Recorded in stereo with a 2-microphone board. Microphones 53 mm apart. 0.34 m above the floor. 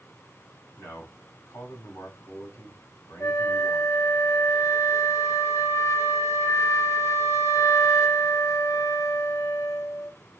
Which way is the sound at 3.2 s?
60° left (ahead or behind).